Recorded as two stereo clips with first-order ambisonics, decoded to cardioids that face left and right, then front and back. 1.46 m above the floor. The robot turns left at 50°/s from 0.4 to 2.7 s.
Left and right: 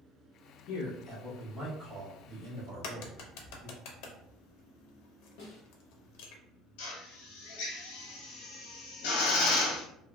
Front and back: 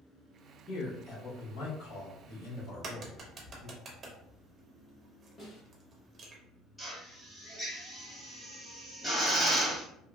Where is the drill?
90° left, 0.9 m.